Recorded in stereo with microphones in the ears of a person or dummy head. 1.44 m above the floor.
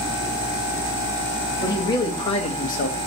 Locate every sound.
1.6 s a man speaking: 15° left (ahead or behind), 1.9 m; by 3.0 s 45° left (ahead or behind), 1.2 m